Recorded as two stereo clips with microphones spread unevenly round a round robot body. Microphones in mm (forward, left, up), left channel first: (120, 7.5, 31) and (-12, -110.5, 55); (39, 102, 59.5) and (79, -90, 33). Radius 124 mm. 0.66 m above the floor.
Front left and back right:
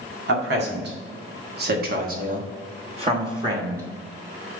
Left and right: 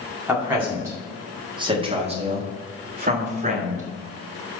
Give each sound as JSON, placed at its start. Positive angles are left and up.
{"t": 0.3, "sound": "a man speaking", "azimuth_deg": -160, "distance_m": 2.0}